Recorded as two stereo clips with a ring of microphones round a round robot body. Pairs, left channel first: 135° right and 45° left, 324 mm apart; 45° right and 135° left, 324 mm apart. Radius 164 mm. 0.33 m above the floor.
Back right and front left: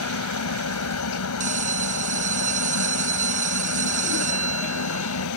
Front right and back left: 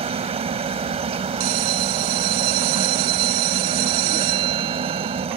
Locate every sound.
0.0 s a helicopter: 160° right
1.4 s a bell: 110° left